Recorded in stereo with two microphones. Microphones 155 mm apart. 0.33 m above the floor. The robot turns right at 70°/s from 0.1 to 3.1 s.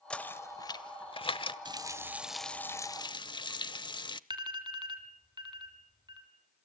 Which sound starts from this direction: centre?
Knocking, at 0.1 s.